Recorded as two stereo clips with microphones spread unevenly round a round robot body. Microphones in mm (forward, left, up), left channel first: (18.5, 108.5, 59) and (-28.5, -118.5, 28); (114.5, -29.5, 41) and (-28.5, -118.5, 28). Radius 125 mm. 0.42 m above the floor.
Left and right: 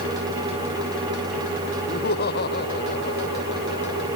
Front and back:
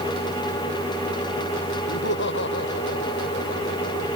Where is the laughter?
25° left; by 4.1 s 30° left.